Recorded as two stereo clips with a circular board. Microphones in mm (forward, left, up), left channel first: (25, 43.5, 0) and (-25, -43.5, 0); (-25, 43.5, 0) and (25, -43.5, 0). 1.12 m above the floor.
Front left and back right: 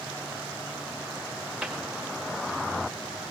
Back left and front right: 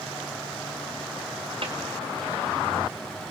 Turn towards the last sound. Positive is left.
turn(degrees=-35)